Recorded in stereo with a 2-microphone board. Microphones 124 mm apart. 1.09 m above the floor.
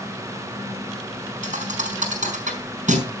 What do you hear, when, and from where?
1.4 s a thud: 80° right, 4.5 m